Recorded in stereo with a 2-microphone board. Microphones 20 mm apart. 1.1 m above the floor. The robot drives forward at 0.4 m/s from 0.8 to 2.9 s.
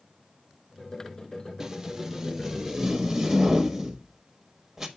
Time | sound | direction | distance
1.6 | tape being pulled | 25° right (ahead or behind) | 0.6 m